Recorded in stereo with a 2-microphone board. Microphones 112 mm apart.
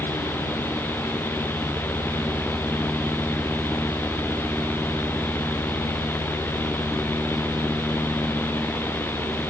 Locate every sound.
Only background noise.